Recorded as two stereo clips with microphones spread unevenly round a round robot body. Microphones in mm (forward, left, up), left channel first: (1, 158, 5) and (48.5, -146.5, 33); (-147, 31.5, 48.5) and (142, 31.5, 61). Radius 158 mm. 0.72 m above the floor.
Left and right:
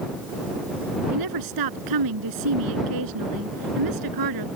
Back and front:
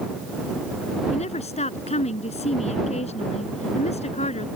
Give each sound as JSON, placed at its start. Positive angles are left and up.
{"t": 1.1, "sound": "a woman speaking", "azimuth_deg": -110}